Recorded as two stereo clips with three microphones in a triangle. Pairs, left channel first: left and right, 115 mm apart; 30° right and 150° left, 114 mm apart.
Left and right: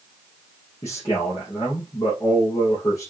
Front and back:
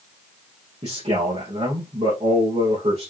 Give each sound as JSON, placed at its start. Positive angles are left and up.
{"t": 0.8, "sound": "a man speaking", "azimuth_deg": 150, "distance_m": 3.5}